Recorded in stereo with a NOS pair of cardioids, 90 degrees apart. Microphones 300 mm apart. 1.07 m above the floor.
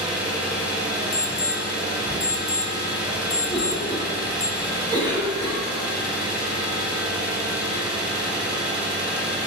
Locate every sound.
0.0 s an engine running: 5° right, 1.3 m
1.1 s an alarm: 25° left, 0.9 m
3.5 s a cough: 15° right, 1.4 m